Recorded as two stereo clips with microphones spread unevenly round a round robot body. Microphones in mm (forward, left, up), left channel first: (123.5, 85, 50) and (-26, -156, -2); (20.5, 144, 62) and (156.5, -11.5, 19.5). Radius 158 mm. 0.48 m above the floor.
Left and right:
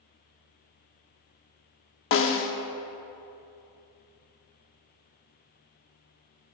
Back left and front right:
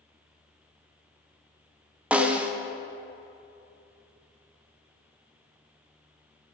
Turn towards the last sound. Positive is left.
turn(degrees=20)